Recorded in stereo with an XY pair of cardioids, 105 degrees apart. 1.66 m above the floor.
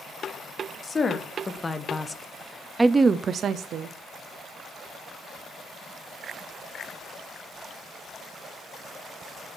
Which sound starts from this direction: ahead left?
A woman speaking, at 0.8 s.